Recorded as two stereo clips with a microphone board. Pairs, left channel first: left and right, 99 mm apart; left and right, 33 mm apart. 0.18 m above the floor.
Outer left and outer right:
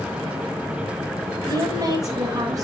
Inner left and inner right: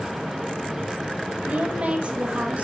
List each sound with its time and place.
1.5 s a woman speaking: 35° right (ahead or behind), 6 m